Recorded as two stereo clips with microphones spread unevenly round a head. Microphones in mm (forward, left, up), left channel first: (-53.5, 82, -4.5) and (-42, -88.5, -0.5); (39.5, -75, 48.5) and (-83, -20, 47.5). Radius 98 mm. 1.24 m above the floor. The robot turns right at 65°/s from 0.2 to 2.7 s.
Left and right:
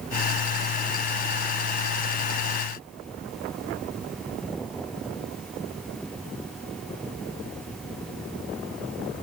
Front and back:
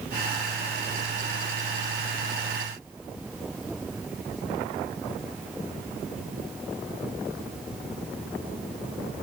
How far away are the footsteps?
I don't hear footsteps.